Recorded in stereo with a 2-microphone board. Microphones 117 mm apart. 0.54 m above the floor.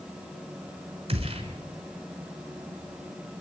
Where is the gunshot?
50° right (ahead or behind), 5 m.